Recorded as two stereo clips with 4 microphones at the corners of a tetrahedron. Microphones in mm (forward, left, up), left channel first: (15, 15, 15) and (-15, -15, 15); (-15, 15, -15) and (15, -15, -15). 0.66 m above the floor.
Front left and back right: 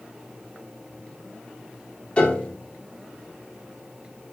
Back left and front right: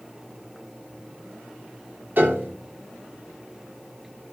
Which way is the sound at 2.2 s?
15° right.